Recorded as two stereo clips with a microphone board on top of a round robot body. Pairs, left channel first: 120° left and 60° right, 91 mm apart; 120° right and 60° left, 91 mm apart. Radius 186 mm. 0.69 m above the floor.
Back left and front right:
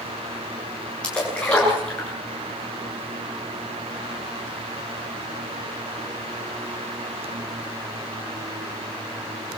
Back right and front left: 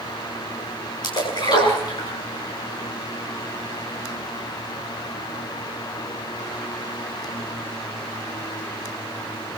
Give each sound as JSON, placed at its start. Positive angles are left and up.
{"t": 1.0, "sound": "a splash", "azimuth_deg": -160, "distance_m": 10.0}